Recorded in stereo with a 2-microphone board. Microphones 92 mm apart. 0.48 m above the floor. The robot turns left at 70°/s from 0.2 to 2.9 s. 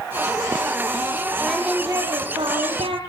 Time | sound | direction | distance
1.4 | singing | 5° left | 5.5 m